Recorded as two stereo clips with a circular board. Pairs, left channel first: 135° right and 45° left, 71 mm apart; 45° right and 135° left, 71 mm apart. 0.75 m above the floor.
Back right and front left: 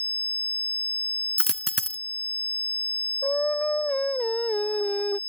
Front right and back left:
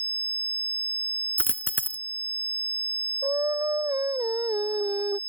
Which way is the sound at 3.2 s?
155° left.